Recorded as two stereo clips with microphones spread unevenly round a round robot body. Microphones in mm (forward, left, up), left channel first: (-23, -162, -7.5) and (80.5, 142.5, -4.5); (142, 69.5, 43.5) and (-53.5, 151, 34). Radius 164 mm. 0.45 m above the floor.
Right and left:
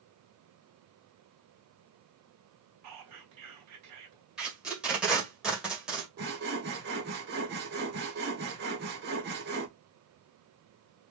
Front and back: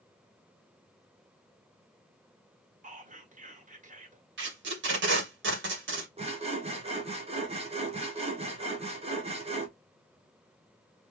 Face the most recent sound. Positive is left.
turn(degrees=115)